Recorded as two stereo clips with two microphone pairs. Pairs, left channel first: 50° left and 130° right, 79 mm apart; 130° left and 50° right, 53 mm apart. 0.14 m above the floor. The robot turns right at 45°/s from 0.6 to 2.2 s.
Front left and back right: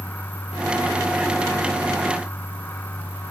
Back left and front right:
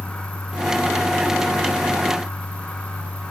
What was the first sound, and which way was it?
Only background noise.